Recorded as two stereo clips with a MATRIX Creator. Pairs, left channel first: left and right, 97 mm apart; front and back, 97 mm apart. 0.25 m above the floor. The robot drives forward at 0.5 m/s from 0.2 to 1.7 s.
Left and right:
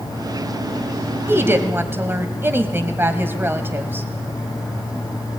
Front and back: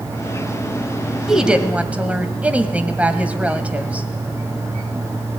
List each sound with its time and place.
1.3 s a woman speaking: 100° right, 1.4 m; by 4.1 s 120° right, 1.4 m